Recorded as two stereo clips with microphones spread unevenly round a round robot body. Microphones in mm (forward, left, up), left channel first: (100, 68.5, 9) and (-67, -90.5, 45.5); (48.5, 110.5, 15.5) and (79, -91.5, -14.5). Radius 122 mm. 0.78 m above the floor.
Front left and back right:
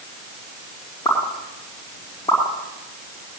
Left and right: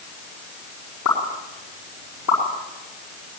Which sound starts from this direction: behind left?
A pop, at 1.1 s.